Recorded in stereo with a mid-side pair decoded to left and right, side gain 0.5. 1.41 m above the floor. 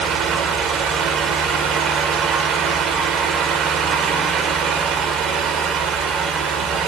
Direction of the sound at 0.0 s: 65° right.